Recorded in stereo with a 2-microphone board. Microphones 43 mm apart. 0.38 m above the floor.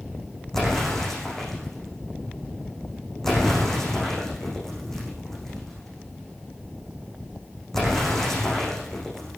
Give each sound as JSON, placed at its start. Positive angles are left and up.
{"t": 0.5, "sound": "an explosion", "side_deg": 10, "distance_m": 8.0}